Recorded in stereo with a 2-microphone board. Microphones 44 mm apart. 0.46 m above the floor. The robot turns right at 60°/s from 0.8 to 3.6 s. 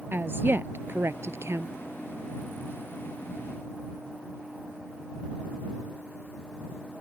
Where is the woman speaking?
125° right; by 1.7 s 70° right.